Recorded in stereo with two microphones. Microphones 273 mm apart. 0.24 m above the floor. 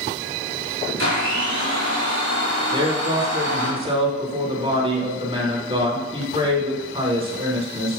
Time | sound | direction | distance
1.0 | a blender | 70° left (ahead or behind) | 3.5 m
2.7 | a man speaking | 20° right (ahead or behind) | 2 m